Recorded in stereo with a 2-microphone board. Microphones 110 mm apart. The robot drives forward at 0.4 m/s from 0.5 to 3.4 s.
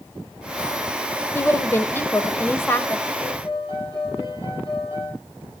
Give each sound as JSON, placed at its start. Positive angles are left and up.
{"t": 1.4, "sound": "a woman speaking", "side_deg": 20, "distance_m": 0.9}
{"t": 3.2, "sound": "a piano", "side_deg": 40, "distance_m": 8.0}